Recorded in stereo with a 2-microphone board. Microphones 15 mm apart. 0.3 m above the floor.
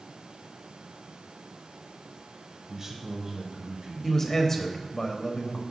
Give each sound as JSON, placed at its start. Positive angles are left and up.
{"t": 2.7, "sound": "a man speaking", "side_deg": -35, "distance_m": 1.0}
{"t": 4.0, "sound": "a man speaking", "side_deg": 25, "distance_m": 0.9}